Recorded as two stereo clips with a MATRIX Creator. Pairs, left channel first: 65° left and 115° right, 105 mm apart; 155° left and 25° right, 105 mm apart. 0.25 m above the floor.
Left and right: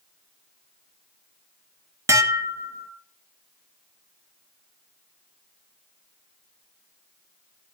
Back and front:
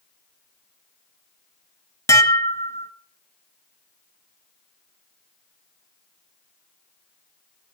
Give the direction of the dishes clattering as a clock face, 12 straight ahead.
5 o'clock.